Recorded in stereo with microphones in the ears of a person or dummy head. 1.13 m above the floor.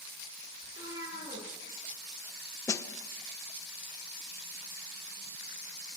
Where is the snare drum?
20° left (ahead or behind), 0.9 m.